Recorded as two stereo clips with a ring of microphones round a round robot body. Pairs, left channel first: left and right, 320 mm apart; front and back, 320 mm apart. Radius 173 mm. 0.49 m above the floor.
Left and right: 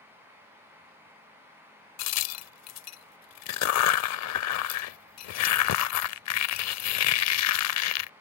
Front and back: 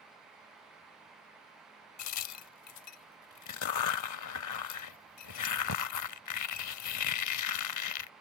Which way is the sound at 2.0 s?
45° left.